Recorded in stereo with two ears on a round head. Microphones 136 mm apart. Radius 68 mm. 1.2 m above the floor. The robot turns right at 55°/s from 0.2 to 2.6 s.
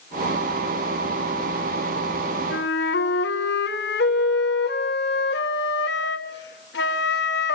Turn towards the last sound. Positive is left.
turn(degrees=80)